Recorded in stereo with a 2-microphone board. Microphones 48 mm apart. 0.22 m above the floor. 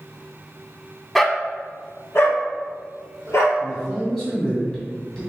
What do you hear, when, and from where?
1.1 s a dog barking: 5° left (ahead or behind), 0.5 m; by 3.5 s 70° left (ahead or behind), 1.8 m
3.6 s a man speaking: 10° left (ahead or behind), 1.9 m